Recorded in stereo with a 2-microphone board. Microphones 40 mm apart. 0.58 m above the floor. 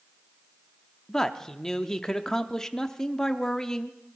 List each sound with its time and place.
1.1 s a man speaking: 15° left (ahead or behind), 0.7 m